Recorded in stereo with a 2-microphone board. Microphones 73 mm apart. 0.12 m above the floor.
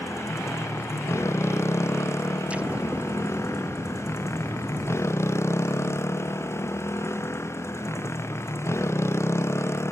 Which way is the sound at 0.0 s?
35° left (ahead or behind).